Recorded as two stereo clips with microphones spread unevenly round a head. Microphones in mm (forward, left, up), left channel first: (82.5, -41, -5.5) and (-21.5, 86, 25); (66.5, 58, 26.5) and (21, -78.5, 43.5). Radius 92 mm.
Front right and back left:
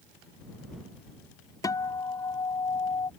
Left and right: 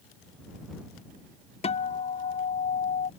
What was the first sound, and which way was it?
A guitar, 25° left.